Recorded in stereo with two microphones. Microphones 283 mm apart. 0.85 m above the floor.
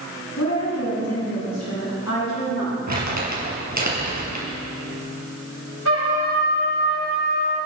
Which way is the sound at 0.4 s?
70° left (ahead or behind).